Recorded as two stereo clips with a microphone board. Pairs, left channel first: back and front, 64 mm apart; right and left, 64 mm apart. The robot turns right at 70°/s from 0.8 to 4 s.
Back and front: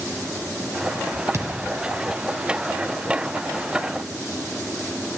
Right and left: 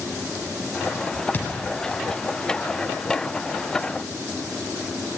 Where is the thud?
30° right, 2 m; by 1.7 s 10° right, 2 m.